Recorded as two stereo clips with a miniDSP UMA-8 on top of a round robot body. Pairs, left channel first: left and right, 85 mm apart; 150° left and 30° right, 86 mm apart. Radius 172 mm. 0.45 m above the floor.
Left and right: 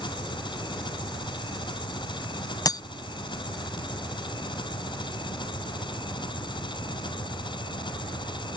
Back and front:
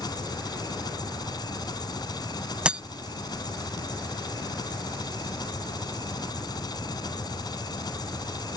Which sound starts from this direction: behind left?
An engine running, at 0.0 s.